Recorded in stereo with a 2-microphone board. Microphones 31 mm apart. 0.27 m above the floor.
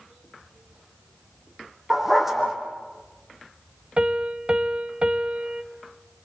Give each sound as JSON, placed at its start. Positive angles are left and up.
{"t": 1.9, "sound": "a dog barking", "side_deg": -10, "distance_m": 3.5}
{"t": 4.0, "sound": "a piano", "side_deg": -35, "distance_m": 0.9}